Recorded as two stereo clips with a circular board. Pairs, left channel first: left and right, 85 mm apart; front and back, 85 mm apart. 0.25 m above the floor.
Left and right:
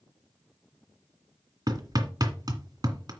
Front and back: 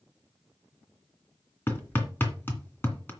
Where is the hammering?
60° right, 2.0 m.